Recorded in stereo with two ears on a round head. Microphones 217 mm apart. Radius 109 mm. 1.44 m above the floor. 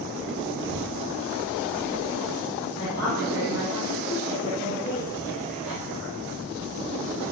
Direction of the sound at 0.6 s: 50° right (ahead or behind).